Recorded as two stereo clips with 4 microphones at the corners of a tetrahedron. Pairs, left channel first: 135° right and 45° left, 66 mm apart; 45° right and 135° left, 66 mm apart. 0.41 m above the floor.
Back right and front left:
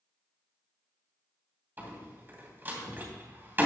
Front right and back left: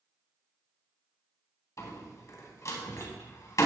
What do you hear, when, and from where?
1.8 s a door slam: 10° right, 2.5 m